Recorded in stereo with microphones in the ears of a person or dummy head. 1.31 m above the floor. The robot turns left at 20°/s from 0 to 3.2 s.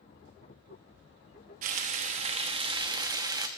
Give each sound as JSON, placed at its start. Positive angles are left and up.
{"t": 1.6, "sound": "frying", "azimuth_deg": -120, "distance_m": 1.1}